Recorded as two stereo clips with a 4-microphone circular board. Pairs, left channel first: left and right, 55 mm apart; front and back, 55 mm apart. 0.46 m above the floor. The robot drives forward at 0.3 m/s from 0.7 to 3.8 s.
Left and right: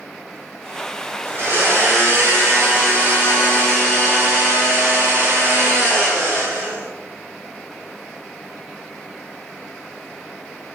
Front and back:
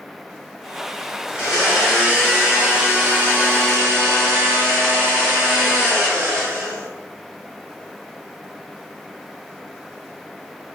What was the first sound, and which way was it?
A blender, 100° right.